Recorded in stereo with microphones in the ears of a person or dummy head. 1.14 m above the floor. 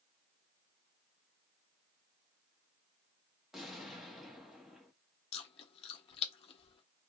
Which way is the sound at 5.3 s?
35° left (ahead or behind).